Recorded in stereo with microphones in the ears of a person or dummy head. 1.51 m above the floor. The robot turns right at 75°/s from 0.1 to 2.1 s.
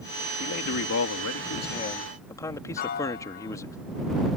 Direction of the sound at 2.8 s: 40° left (ahead or behind).